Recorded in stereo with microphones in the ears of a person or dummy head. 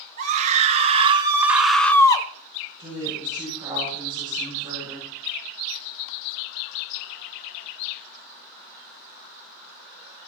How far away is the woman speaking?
About 7.5 m.